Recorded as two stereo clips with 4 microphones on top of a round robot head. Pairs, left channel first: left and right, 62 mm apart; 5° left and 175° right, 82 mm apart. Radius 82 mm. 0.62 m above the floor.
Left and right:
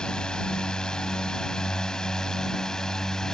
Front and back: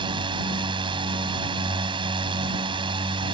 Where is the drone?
170° left.